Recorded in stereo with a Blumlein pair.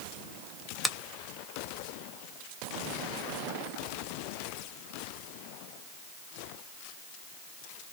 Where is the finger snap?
5° left, 0.5 m.